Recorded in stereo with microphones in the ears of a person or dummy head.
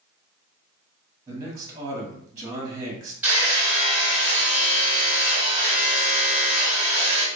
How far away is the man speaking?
About 0.9 m.